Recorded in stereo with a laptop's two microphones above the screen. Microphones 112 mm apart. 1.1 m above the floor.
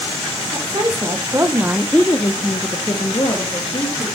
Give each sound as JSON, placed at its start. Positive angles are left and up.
{"t": 0.5, "sound": "a woman speaking", "side_deg": -35, "distance_m": 2.0}